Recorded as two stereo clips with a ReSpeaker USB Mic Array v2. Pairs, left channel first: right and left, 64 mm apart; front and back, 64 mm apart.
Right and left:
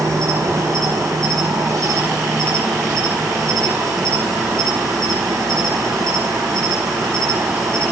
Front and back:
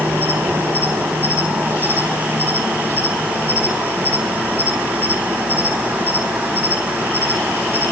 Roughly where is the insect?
Behind left.